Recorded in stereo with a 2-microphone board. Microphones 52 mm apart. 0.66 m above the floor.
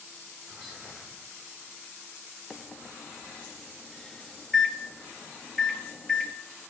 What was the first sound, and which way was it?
Whispering, centre (ahead or behind).